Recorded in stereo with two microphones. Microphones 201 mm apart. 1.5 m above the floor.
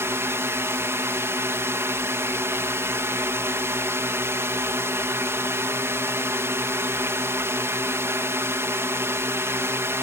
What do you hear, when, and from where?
0.0 s a drone: 15° right (ahead or behind)